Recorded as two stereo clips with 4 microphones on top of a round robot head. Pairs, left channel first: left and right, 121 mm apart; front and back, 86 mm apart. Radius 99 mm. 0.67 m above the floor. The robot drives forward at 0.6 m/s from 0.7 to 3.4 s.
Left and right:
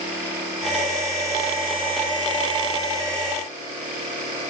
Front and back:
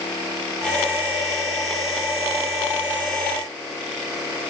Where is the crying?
I don't hear crying.